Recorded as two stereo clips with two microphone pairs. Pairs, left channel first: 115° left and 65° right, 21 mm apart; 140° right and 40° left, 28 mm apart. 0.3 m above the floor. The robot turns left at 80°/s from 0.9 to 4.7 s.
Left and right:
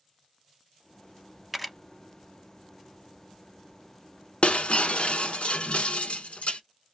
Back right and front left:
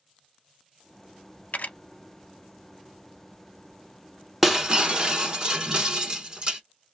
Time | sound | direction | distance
1.5 | a camera shutter | 140° right | 0.5 m
4.4 | breaking glass | 125° left | 0.7 m